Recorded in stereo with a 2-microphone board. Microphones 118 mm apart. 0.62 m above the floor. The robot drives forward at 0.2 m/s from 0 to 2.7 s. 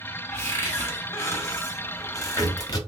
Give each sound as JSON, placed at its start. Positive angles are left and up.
{"t": 0.3, "sound": "a cupboard door", "side_deg": 20, "distance_m": 0.9}